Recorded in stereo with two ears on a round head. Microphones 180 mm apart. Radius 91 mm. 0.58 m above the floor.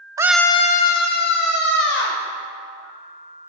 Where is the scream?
20° right (ahead or behind), 0.6 m; by 2.2 s 60° left (ahead or behind), 2.5 m.